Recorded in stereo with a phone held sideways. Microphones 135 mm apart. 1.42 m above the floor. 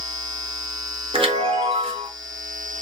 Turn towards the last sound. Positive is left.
turn(degrees=-45)  # may be behind; listen again after turning